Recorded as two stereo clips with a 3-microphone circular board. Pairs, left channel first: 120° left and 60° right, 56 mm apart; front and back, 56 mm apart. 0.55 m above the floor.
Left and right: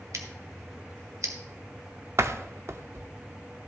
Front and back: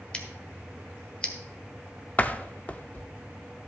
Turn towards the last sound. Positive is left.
turn(degrees=-55)